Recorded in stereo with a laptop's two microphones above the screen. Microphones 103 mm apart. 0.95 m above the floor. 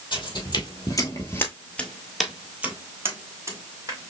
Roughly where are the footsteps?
Left.